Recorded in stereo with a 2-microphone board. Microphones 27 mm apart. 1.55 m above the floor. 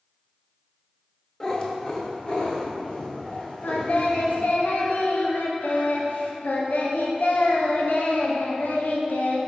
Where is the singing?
75° left (ahead or behind), 0.9 m.